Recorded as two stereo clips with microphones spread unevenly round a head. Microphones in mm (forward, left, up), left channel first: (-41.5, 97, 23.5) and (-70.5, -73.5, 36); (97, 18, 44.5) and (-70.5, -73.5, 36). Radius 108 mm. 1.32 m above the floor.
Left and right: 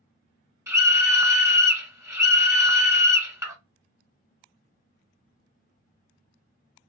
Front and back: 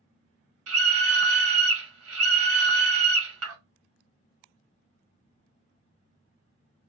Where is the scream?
175° right, 1.1 m.